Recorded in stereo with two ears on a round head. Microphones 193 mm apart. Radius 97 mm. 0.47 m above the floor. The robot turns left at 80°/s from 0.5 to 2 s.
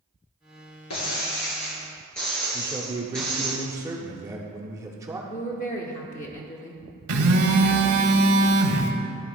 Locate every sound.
0.9 s breaking glass: 90° left, 2 m; by 3.5 s 5° left, 2 m
2.5 s a man speaking: 15° right (ahead or behind), 0.8 m
5.3 s a woman speaking: 35° left (ahead or behind), 0.8 m
7.1 s a phone buzzing: 80° right, 0.9 m